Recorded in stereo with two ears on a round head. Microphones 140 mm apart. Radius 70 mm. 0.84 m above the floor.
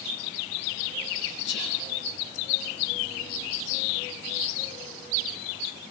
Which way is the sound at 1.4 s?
85° left.